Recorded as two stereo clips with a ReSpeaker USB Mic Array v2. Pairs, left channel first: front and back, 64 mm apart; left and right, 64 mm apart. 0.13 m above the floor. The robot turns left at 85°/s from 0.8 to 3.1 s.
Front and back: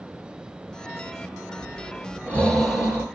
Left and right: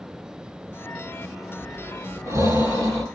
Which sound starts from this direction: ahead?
Breathing, at 1.6 s.